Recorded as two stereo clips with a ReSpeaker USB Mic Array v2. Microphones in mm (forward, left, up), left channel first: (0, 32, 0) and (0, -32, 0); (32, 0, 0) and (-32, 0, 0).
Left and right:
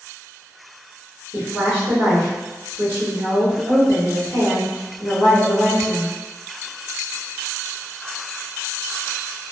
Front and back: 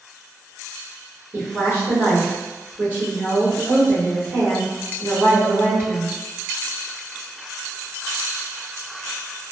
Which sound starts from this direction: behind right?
A woman speaking, at 1.3 s.